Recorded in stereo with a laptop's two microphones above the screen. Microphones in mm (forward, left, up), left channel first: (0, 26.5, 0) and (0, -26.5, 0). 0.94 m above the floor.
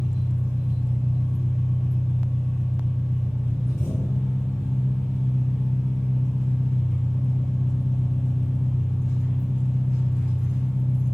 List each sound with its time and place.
0.0 s an engine running: 5° right (ahead or behind), 1.4 m